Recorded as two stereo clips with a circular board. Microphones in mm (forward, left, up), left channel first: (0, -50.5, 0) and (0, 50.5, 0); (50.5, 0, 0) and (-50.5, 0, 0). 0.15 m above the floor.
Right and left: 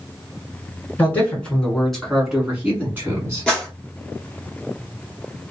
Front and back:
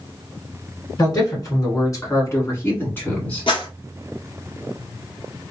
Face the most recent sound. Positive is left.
turn(degrees=-10)